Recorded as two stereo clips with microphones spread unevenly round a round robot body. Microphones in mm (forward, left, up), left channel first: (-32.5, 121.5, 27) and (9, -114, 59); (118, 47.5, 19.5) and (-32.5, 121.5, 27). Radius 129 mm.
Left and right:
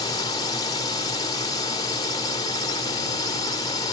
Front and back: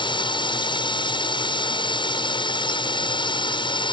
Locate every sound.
0.0 s a drone: 30° left